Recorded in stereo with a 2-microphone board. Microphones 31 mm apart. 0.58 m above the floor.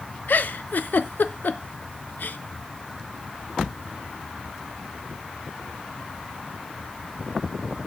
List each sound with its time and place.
0.3 s a giggle: 85° left, 0.6 m